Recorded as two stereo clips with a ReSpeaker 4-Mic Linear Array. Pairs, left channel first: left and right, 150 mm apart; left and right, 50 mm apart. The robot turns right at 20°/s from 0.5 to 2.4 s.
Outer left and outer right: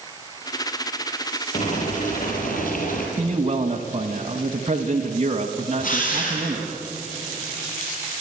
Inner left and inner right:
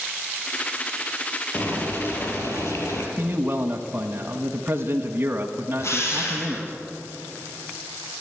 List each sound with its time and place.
1.5 s boiling: 55° left (ahead or behind), 4.5 m; by 3.1 s 70° left (ahead or behind), 4.5 m
3.2 s a man speaking: 40° right (ahead or behind), 1.3 m
5.8 s a drill: 65° left (ahead or behind), 6.5 m